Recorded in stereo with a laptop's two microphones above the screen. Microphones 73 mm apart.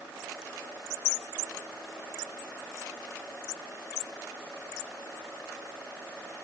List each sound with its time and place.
Only background noise.